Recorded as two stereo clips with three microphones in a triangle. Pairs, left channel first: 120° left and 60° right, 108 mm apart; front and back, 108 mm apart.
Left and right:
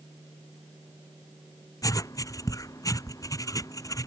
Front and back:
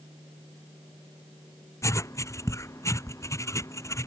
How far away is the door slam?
I don't hear a door slam.